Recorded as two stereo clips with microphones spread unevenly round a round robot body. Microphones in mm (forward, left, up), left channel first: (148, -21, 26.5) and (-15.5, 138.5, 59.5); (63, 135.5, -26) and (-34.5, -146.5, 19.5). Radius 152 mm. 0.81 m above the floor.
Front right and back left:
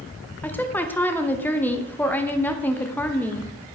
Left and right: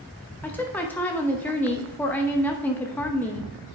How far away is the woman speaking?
About 0.8 m.